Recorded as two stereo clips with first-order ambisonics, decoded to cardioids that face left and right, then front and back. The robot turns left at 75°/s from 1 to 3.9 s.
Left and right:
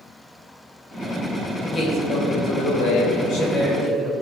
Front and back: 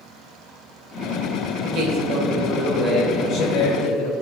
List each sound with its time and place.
1.6 s a man speaking: 175° left, 2.5 m; by 4.1 s 5° left, 2.5 m